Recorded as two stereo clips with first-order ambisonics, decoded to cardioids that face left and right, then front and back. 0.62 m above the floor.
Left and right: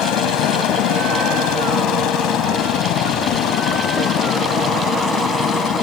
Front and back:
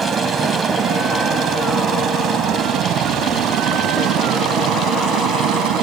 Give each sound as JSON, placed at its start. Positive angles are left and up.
{"t": 0.0, "sound": "a helicopter", "azimuth_deg": 110}